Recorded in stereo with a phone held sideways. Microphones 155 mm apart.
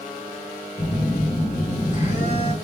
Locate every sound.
0.8 s a phone buzzing: 45° left (ahead or behind), 2.5 m